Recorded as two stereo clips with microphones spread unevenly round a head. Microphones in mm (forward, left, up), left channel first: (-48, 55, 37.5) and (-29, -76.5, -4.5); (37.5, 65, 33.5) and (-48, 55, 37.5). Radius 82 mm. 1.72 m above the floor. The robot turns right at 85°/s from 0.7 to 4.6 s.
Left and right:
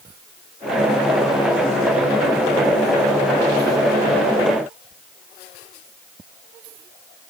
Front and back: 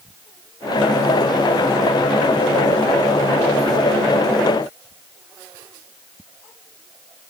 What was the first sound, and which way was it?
Only background noise.